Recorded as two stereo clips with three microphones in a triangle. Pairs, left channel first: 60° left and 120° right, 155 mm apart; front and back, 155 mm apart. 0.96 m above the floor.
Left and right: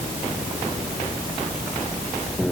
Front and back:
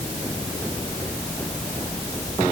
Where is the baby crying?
I don't hear a baby crying.